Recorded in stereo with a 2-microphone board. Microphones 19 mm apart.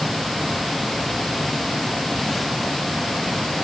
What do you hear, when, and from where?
Only background noise.